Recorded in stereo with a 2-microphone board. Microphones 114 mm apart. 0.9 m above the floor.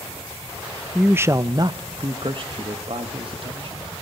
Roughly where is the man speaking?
Centre.